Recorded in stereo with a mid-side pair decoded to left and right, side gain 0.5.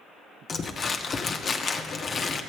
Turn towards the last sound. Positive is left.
turn(degrees=40)